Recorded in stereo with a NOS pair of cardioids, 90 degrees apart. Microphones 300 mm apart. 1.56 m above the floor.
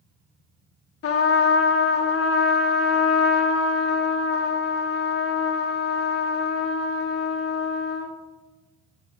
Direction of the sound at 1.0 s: 50° left.